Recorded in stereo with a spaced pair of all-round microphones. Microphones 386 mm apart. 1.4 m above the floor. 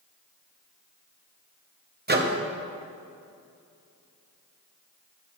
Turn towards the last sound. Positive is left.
turn(degrees=-30)  # may be behind; listen again after turning